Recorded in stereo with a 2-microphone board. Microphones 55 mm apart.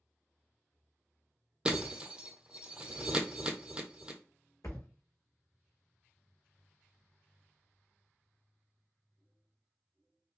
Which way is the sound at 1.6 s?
20° right (ahead or behind).